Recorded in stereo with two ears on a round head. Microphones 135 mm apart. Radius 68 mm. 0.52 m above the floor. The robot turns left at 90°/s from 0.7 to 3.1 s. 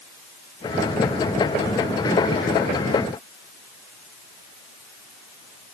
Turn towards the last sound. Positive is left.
No sound to turn to.